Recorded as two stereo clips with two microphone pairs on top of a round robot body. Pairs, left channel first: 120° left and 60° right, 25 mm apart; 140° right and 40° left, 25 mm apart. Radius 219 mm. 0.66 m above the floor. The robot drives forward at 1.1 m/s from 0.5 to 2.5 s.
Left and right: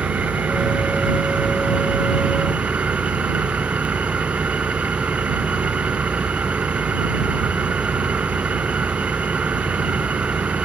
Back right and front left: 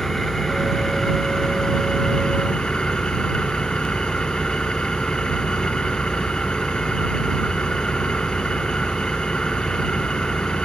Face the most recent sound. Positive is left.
turn(degrees=-85)